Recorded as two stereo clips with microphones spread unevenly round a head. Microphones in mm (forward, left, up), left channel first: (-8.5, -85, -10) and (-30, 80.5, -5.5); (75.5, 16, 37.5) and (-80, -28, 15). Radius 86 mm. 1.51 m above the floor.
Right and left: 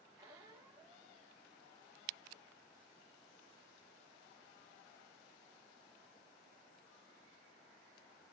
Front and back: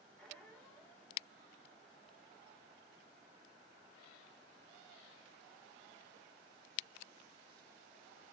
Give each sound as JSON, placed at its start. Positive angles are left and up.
{"t": 0.2, "sound": "a squeak", "azimuth_deg": 70, "distance_m": 0.7}